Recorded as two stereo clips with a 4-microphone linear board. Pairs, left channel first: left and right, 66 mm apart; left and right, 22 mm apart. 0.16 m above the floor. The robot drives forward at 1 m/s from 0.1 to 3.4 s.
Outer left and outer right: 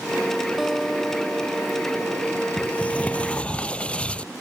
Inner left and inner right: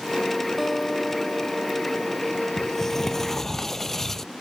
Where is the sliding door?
25° left (ahead or behind); by 4.3 s 20° left (ahead or behind).